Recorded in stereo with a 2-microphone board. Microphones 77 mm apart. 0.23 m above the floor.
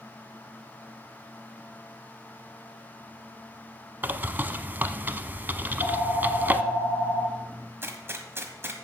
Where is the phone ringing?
55° left (ahead or behind), 4 m.